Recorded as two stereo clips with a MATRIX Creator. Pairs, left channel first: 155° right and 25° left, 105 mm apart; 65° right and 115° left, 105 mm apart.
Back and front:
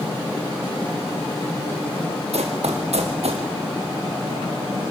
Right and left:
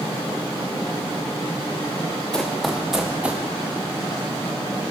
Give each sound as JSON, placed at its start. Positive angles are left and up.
{"t": 2.3, "sound": "running footsteps", "azimuth_deg": 15, "distance_m": 2.5}